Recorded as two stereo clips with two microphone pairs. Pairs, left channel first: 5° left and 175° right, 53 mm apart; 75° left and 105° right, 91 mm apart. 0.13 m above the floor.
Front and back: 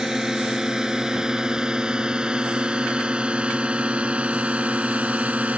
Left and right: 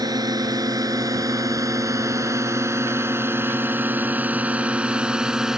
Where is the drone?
100° right; by 5.6 s 175° left.